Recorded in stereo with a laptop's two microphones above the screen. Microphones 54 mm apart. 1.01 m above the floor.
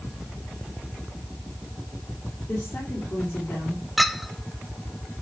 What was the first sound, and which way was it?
A woman speaking, 50° left (ahead or behind).